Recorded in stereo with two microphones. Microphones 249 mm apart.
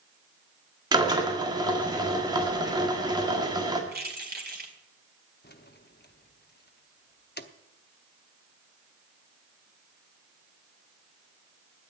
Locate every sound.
0.9 s a drill: 15° right (ahead or behind), 1.8 m
3.9 s keys jangling: 40° right (ahead or behind), 2 m
5.4 s keys jangling: 40° left (ahead or behind), 0.8 m